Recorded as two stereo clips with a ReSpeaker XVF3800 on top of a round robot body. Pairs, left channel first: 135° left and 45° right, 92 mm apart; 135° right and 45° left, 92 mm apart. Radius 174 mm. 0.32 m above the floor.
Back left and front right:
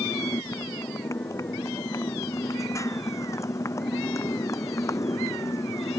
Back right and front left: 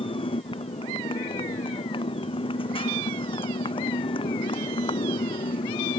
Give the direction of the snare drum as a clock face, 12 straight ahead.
I don't hear a snare drum.